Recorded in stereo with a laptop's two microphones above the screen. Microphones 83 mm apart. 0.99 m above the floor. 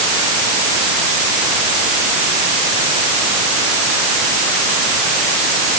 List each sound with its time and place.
Only background noise.